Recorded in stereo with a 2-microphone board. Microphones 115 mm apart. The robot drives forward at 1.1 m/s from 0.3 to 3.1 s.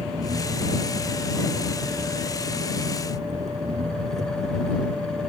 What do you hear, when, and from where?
0.0 s an engine running: 85° right; by 5.3 s 80° right